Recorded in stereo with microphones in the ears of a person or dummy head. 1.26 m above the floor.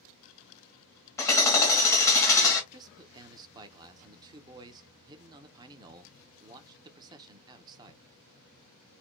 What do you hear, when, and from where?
1.2 s hammering: 15° left (ahead or behind), 1.4 m
2.7 s a man speaking: 20° right (ahead or behind), 0.6 m